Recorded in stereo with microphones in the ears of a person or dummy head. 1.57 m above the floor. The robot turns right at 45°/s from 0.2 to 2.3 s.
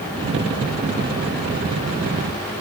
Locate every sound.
Only background noise.